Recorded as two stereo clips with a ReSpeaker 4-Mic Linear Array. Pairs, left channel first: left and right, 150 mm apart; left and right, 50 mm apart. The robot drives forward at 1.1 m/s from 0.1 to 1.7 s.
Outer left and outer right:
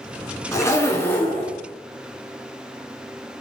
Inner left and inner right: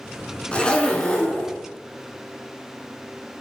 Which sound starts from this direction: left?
A zipper, at 0.5 s.